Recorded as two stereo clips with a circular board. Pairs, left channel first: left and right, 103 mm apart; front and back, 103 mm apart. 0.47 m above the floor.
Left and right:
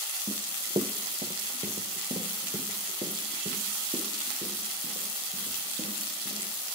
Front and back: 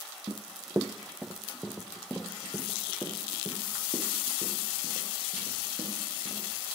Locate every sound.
0.3 s running footsteps: 130° right, 1.2 m; by 6.5 s 70° right, 7 m